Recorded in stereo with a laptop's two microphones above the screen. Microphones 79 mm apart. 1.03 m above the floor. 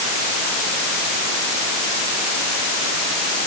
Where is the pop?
I don't hear a pop.